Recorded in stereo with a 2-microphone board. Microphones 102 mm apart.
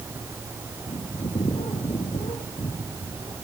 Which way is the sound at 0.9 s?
75° left (ahead or behind).